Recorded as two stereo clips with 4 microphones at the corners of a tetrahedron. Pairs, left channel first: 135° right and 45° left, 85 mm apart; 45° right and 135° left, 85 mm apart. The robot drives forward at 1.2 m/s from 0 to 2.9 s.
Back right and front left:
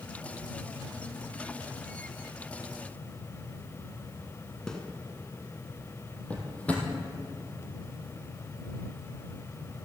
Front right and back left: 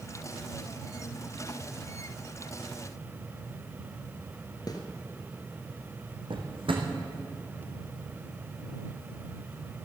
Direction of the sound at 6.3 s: 150° left.